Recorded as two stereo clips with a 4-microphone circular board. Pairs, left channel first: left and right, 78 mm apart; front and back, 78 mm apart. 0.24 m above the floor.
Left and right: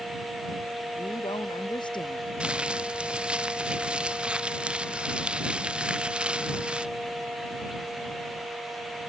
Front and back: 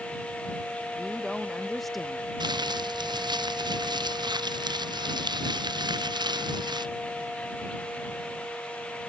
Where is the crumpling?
165° right.